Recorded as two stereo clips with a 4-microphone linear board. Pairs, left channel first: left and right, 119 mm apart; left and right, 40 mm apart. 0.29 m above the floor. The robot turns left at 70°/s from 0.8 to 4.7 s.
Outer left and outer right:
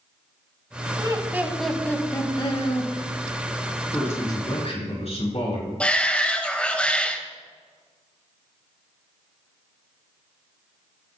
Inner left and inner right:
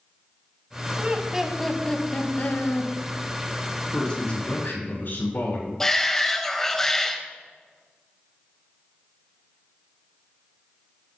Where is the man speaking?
170° left, 3.5 m; by 5.7 s 115° left, 3.5 m.